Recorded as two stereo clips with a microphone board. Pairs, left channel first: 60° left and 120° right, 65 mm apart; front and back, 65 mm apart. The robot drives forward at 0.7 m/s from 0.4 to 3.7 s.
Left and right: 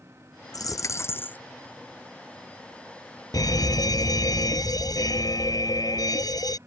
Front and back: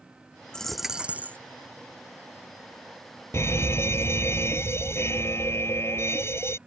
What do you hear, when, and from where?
0.5 s a dropped coin: 80° left; by 1.4 s 125° left
3.3 s a fire alarm: 45° left